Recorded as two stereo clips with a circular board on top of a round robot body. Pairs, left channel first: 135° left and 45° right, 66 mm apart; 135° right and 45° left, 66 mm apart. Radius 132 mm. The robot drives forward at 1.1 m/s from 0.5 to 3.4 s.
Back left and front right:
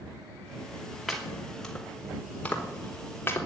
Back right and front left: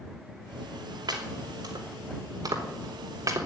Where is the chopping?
45° left, 4.5 m; by 3.5 s 80° left, 3.5 m.